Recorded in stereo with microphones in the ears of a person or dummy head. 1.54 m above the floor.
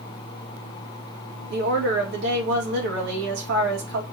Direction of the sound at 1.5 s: 70° right (ahead or behind).